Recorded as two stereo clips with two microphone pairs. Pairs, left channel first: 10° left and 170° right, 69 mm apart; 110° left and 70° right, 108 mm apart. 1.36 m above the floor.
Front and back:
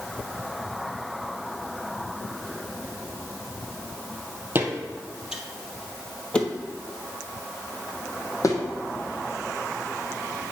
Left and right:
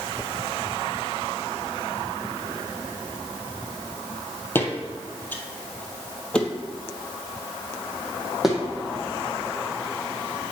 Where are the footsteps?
165° left, 1.5 m; by 8.6 s 20° left, 2 m.